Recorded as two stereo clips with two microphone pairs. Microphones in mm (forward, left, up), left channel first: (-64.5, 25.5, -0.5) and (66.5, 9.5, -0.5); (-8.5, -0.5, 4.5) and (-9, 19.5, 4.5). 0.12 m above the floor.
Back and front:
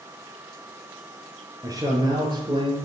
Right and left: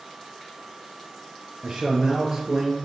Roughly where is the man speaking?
Ahead left.